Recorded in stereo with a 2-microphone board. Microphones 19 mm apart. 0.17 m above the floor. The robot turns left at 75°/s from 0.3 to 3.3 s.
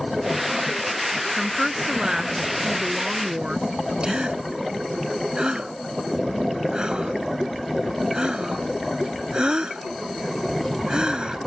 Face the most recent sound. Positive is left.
turn(degrees=-45)  # may be behind; listen again after turning